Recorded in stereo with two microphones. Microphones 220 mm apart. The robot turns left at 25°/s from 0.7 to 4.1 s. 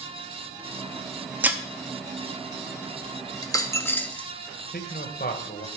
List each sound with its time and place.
1.4 s breaking glass: 5° right (ahead or behind), 0.8 m; by 1.6 s 10° right (ahead or behind), 0.8 m
3.4 s a dropped coin: 20° left (ahead or behind), 0.7 m; by 4.3 s 5° left (ahead or behind), 0.7 m
4.7 s a man speaking: 40° left (ahead or behind), 1.3 m